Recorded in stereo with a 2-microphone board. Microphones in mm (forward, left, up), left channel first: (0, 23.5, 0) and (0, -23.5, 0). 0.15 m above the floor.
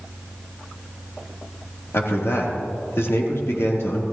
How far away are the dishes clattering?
No dishes clattering in this recording.